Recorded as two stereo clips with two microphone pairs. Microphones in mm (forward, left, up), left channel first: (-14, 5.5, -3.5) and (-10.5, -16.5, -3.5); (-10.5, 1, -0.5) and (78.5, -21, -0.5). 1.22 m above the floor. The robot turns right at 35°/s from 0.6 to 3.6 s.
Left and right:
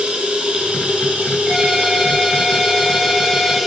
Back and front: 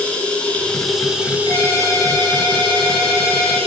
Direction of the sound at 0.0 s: 115° right.